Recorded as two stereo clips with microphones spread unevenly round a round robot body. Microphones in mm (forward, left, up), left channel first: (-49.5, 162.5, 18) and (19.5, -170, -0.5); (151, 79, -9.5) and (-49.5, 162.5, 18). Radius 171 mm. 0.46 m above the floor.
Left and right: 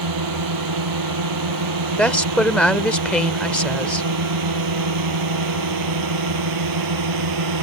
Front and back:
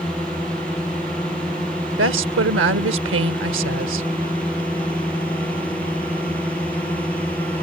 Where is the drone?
110° right.